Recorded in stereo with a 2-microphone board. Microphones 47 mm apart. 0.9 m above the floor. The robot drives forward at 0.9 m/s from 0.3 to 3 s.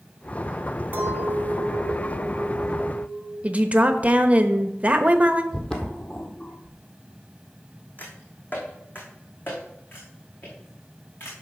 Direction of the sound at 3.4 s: 25° right (ahead or behind).